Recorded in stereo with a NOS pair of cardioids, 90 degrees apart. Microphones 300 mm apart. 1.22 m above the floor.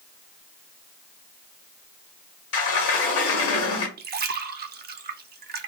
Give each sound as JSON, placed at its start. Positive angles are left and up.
{"t": 2.5, "sound": "a sliding door", "azimuth_deg": 55, "distance_m": 0.9}
{"t": 4.0, "sound": "a splash", "azimuth_deg": -35, "distance_m": 0.5}